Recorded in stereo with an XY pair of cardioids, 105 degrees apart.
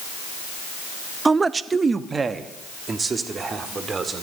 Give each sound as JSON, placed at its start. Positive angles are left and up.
{"t": 1.2, "sound": "a man speaking", "azimuth_deg": -25, "distance_m": 0.6}